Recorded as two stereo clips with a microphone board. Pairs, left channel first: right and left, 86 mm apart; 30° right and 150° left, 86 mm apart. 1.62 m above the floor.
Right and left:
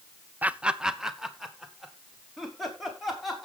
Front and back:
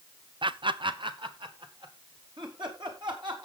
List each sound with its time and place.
0.4 s laughter: 160° left, 0.5 m; by 3.5 s straight behind, 4 m